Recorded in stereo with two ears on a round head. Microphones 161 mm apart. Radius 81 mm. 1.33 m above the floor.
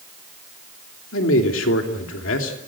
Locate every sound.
1.1 s a man speaking: 90° left, 3 m